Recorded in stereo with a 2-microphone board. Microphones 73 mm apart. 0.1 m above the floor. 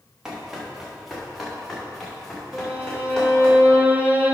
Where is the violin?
20° right (ahead or behind), 1.2 m.